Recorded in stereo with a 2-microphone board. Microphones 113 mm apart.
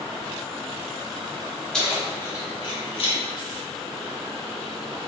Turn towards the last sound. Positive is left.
turn(degrees=55)  # may be behind; listen again after turning